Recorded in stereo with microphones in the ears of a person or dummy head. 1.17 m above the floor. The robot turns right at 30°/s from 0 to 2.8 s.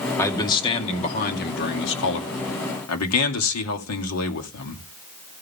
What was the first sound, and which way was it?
A man speaking, 15° left.